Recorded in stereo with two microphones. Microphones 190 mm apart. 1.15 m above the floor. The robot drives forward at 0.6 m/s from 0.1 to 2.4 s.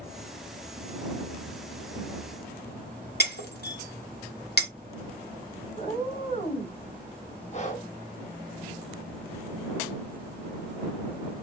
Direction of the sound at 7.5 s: 40° left (ahead or behind).